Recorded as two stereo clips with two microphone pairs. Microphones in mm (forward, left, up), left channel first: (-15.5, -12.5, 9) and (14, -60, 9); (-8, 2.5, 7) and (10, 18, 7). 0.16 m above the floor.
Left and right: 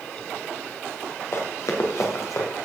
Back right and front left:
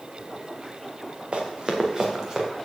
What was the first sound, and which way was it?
Running footsteps, 90° left.